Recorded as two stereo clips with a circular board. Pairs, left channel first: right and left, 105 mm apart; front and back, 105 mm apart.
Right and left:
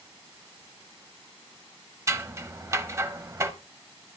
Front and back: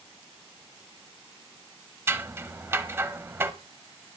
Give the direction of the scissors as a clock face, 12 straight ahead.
8 o'clock.